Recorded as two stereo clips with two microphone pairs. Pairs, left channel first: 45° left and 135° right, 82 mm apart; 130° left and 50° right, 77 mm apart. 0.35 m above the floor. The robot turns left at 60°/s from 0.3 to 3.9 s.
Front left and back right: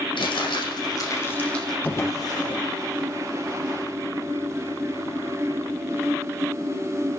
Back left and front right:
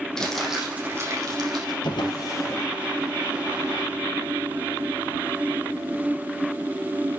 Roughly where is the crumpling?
Ahead left.